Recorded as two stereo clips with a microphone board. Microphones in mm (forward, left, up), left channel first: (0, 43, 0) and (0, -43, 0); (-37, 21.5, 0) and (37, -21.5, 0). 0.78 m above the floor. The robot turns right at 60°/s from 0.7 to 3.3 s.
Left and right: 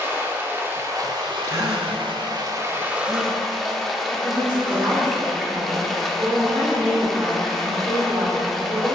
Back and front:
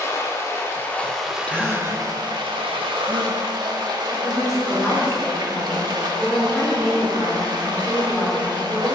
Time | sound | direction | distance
0.0 | running water | 155° right | 1.1 m
1.4 | a gasp | 140° right | 1.0 m
4.1 | a woman speaking | 125° right | 1.9 m